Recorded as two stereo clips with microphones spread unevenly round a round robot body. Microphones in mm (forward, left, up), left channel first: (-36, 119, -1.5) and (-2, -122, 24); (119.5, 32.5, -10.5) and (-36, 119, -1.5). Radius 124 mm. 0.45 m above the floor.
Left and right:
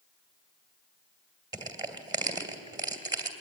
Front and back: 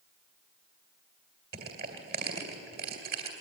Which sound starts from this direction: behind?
Crushing, at 1.5 s.